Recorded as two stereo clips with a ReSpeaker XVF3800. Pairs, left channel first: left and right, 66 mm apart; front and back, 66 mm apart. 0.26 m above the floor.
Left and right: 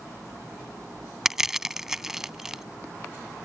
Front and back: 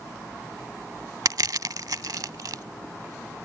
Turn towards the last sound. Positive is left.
turn(degrees=-175)